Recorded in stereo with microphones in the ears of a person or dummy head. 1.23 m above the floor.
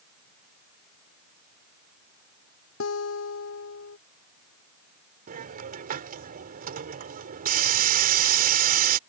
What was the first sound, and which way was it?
A guitar, 70° left (ahead or behind).